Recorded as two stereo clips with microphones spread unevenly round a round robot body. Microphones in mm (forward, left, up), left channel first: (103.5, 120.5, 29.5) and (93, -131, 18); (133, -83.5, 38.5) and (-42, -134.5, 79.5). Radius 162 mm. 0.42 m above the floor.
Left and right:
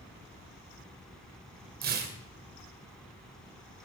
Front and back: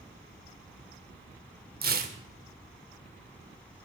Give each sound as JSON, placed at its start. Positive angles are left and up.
{"t": 1.8, "sound": "tearing paper", "azimuth_deg": -135, "distance_m": 1.9}